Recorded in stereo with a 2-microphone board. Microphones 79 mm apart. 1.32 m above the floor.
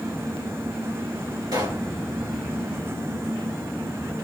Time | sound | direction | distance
1.5 | a pop | 65° right (ahead or behind) | 3 m